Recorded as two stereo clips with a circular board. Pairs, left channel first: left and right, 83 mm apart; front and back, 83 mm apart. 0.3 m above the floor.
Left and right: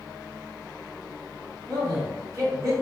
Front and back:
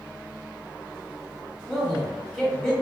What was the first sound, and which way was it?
A man speaking, 85° right.